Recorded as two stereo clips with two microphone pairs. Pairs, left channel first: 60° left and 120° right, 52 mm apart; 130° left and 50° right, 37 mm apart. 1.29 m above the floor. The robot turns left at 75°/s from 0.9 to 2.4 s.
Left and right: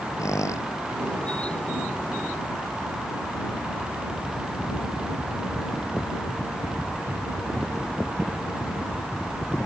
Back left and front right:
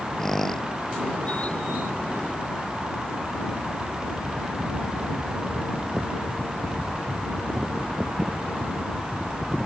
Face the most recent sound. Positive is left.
turn(degrees=-60)